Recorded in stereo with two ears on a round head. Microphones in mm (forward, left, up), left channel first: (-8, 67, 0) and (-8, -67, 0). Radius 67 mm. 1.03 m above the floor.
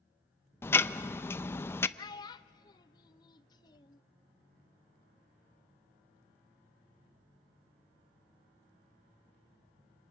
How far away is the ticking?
About 0.5 m.